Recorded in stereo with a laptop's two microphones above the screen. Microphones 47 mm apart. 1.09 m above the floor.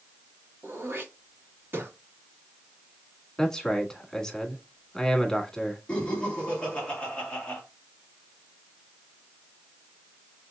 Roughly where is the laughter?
Left.